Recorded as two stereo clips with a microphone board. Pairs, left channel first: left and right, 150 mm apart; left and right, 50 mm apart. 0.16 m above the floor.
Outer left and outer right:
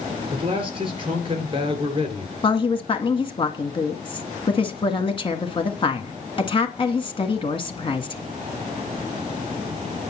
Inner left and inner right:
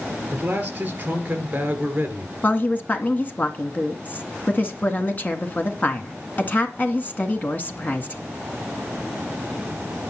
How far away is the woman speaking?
About 1.8 m.